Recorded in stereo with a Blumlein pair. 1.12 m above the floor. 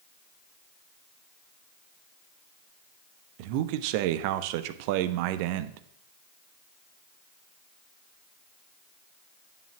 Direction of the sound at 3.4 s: 45° right.